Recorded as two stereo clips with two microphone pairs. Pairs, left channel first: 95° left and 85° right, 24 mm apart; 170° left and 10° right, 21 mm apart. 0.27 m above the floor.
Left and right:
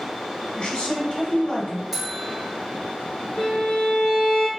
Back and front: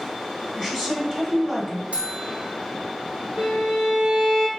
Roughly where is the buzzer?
Ahead.